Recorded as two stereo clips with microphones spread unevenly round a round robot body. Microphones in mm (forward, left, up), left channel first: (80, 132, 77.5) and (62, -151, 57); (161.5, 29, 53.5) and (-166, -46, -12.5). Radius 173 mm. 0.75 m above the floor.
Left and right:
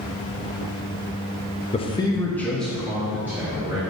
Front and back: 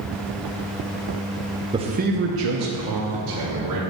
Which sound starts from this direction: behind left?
A man speaking, at 1.7 s.